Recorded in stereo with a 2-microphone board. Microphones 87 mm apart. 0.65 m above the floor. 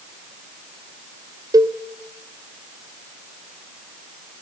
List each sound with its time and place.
1.5 s a cowbell: 45° right (ahead or behind), 0.8 m